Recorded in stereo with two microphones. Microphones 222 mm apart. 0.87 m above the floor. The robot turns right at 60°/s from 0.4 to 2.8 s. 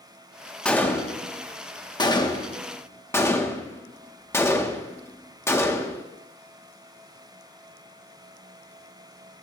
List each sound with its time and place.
0.7 s a gunshot: 5° left (ahead or behind), 0.8 m; by 6.0 s 10° left (ahead or behind), 0.8 m